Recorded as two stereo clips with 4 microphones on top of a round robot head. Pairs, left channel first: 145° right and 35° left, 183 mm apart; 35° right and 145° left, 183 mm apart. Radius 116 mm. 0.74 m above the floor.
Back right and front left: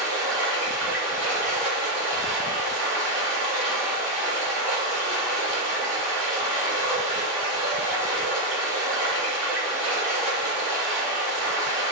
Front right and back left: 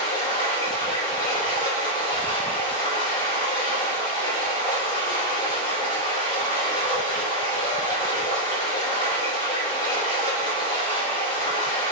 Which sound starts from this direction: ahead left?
Running water, at 0.0 s.